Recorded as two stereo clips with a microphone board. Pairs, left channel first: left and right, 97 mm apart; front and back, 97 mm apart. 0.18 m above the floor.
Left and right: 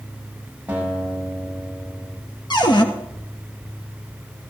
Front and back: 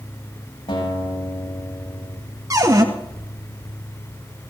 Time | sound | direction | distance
0.7 | a guitar | 15° right | 8 m
2.5 | a cupboard door | 125° left | 2 m